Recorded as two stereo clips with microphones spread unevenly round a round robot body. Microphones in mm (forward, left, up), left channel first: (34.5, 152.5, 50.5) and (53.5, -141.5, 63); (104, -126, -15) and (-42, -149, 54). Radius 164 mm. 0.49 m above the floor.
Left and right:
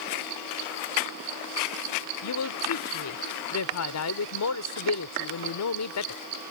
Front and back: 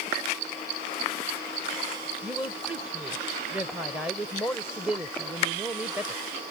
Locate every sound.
2.2 s a woman speaking: 90° left